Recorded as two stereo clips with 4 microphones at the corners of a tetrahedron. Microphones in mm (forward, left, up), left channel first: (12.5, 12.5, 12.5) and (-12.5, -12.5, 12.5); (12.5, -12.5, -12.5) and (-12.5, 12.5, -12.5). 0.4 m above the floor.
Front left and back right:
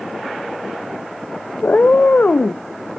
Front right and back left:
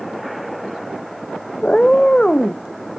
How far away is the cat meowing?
About 0.5 m.